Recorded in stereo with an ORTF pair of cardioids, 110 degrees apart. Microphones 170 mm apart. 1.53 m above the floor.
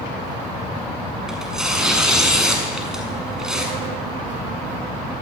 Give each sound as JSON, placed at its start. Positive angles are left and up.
{"t": 1.3, "sound": "tearing paper", "azimuth_deg": -5, "distance_m": 6.5}